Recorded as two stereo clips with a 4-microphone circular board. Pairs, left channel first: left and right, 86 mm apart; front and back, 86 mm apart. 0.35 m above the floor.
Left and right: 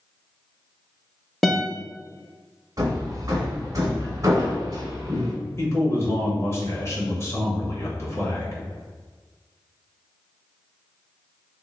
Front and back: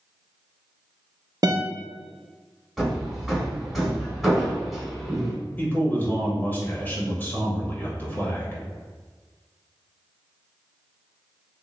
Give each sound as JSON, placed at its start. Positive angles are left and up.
{"t": 1.4, "sound": "a guitar", "azimuth_deg": 180, "distance_m": 0.6}
{"t": 2.8, "sound": "hammering", "azimuth_deg": -85, "distance_m": 1.4}
{"t": 5.6, "sound": "a man speaking", "azimuth_deg": 55, "distance_m": 1.2}